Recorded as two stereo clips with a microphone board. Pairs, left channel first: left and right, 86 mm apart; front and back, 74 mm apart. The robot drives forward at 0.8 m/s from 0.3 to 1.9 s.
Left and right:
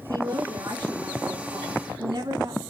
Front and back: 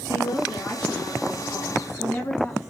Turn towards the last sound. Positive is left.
turn(degrees=-60)